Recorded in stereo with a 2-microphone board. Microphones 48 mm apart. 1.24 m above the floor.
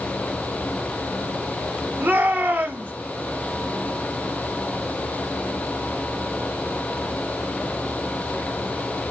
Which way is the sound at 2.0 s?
45° right (ahead or behind).